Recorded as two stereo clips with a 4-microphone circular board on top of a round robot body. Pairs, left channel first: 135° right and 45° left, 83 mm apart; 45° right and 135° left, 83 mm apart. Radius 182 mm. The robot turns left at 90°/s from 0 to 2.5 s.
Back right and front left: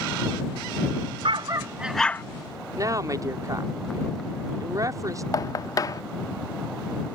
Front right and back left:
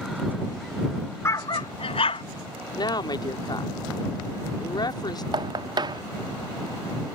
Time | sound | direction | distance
1.2 | a dog barking | 15° left | ?
2.8 | a woman speaking | 5° right | ?
5.3 | knocking | 175° left | ?